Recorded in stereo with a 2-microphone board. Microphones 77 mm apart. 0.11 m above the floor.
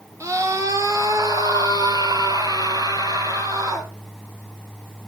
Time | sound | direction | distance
0.2 | a scream | 40° right (ahead or behind) | 2.5 m